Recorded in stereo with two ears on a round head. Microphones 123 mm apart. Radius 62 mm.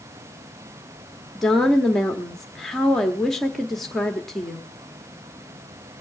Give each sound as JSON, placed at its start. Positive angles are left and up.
{"t": 1.4, "sound": "a woman speaking", "side_deg": 5, "distance_m": 1.1}